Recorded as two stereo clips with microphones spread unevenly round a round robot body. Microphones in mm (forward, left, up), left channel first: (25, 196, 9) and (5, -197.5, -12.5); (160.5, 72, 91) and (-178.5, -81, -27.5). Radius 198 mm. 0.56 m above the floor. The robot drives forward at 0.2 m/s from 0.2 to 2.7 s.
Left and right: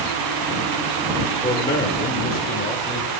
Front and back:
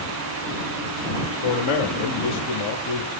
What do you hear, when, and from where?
1.4 s a man speaking: 25° left, 0.8 m; by 3.1 s 40° left, 0.7 m